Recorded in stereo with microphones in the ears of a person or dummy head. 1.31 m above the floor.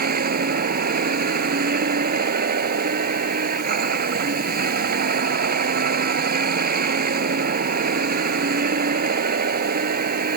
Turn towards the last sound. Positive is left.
turn(degrees=-50)  # may be behind; listen again after turning